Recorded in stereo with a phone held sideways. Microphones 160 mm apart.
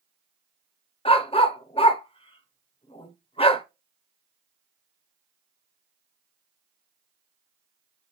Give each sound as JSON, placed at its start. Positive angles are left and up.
{"t": 1.1, "sound": "a dog barking", "side_deg": 35, "distance_m": 0.5}